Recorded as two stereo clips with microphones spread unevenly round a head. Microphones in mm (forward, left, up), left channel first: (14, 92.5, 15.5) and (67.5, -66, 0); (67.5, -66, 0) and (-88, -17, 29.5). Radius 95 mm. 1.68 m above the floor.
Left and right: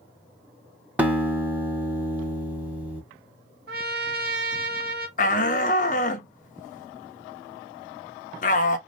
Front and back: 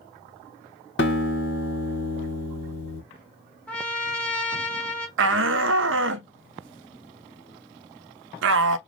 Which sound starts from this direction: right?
A trumpet, at 3.7 s.